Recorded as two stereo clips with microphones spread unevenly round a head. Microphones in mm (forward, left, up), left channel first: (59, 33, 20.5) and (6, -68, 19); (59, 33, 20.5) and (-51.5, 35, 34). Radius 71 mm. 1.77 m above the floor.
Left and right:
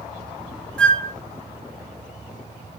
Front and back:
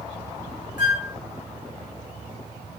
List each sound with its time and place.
0.8 s a flute: 20° right, 0.8 m